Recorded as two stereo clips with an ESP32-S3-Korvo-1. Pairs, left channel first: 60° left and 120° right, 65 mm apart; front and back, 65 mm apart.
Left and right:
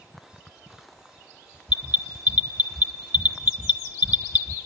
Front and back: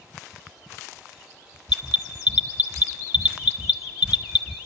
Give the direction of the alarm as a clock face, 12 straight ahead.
5 o'clock.